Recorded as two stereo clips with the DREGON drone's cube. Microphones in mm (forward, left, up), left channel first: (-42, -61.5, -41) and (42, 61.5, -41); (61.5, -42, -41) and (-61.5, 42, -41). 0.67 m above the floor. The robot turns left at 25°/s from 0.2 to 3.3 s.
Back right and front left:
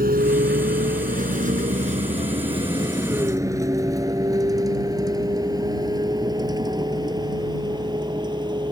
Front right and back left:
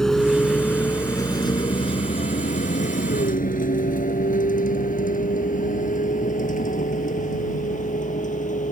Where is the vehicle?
50° left; by 8.7 s 5° right.